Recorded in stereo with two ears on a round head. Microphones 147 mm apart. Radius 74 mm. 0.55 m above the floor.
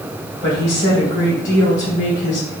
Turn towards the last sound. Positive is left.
turn(degrees=75)  # may be behind; listen again after turning